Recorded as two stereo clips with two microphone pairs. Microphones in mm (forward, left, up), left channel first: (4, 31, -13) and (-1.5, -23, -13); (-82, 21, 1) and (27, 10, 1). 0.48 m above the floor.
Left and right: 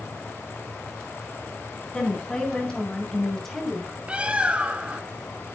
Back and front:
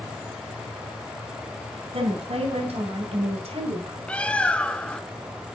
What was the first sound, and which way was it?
A woman speaking, 15° left.